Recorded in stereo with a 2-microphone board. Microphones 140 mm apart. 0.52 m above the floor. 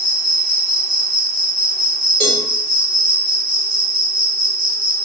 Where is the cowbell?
5° left (ahead or behind), 1.6 m.